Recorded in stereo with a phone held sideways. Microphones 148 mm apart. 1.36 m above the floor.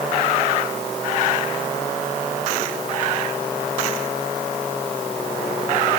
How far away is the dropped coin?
I don't hear a dropped coin.